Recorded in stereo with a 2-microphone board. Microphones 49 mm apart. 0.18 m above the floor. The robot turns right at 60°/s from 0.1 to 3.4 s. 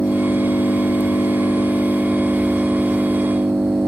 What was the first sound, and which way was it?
An engine running, 40° left.